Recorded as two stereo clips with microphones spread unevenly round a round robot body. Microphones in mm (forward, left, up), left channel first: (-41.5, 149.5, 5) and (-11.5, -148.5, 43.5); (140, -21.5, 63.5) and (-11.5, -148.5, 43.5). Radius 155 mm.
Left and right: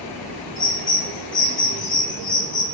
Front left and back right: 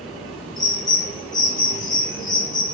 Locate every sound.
0.6 s a bird: 90° left, 1.3 m